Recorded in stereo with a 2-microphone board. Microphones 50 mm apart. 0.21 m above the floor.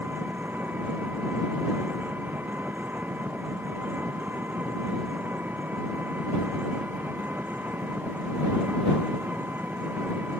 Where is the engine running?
35° right (ahead or behind).